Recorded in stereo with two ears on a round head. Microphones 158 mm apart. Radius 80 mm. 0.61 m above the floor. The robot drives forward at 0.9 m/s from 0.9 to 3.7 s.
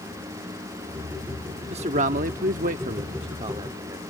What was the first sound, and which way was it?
A man speaking, 35° right (ahead or behind).